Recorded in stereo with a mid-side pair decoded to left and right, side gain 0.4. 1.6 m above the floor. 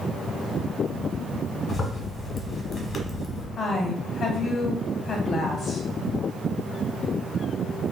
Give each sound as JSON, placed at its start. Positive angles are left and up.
{"t": 1.7, "sound": "a zipper", "azimuth_deg": 50, "distance_m": 1.3}
{"t": 3.6, "sound": "a woman speaking", "azimuth_deg": 60, "distance_m": 1.2}